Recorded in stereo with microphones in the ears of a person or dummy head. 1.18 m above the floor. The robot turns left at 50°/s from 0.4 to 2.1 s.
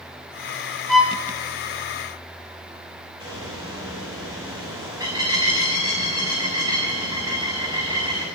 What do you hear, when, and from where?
0.9 s a violin: centre (ahead or behind), 3.5 m; by 1.1 s 10° right (ahead or behind), 3.5 m
3.2 s a bird: 20° right (ahead or behind), 7 m